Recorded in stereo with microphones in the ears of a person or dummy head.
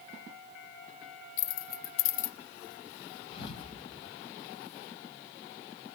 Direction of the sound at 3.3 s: 45° left (ahead or behind).